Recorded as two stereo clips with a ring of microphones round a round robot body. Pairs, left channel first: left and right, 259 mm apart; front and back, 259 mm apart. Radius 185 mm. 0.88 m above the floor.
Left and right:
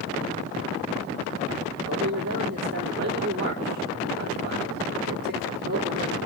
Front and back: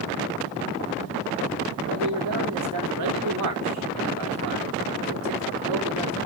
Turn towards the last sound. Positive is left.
turn(degrees=-150)